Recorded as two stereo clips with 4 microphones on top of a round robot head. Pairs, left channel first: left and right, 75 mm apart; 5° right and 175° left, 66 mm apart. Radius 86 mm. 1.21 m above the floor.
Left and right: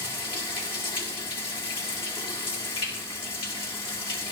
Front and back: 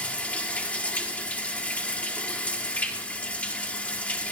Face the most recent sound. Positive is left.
turn(degrees=65)